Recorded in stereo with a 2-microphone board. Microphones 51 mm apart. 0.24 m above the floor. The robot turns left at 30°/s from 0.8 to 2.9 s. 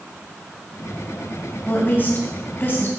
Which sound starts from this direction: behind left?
A woman speaking, at 1.7 s.